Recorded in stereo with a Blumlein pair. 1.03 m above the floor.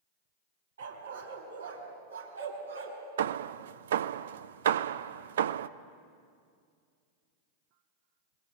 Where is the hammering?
60° right, 0.6 m.